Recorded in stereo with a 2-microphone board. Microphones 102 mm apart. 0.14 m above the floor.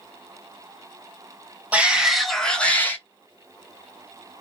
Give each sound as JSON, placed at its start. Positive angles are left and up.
{"t": 1.7, "sound": "a shout", "side_deg": -10, "distance_m": 1.3}